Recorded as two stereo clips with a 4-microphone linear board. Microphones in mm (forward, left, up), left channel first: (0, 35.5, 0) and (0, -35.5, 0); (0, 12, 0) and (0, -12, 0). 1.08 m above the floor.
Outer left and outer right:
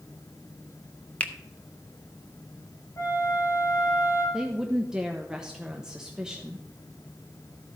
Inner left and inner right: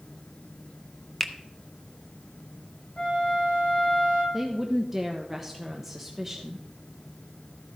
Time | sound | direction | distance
1.2 | a finger snap | 20° left (ahead or behind) | 0.8 m
3.0 | a flute | 50° left (ahead or behind) | 6 m
4.3 | a woman speaking | 10° right (ahead or behind) | 0.9 m